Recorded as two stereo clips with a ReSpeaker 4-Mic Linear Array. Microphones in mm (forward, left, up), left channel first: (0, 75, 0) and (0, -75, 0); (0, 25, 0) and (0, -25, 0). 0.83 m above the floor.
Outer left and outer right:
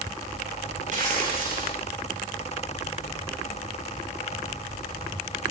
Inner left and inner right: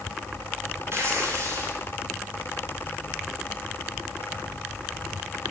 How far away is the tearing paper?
About 7.5 m.